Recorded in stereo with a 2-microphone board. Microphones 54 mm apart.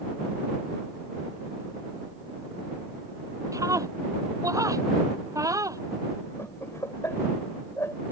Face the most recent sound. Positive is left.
turn(degrees=60)  # may be behind; listen again after turning